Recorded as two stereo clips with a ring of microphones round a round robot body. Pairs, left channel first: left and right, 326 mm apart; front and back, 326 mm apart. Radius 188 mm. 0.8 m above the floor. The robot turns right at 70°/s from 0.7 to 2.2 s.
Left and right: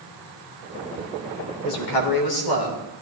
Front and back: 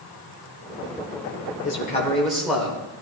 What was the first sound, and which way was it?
A man speaking, 50° left.